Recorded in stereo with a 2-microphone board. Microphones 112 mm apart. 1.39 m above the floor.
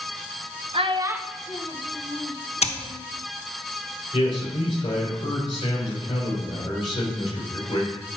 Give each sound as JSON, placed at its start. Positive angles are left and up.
{"t": 0.7, "sound": "a child speaking", "side_deg": -55, "distance_m": 0.8}
{"t": 2.6, "sound": "scissors", "side_deg": 70, "distance_m": 0.9}
{"t": 4.1, "sound": "a man speaking", "side_deg": 45, "distance_m": 5.5}